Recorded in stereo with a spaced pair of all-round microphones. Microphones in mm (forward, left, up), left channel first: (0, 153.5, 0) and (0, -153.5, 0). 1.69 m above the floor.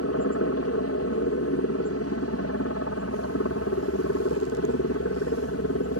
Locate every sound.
0.0 s a helicopter: 55° left (ahead or behind)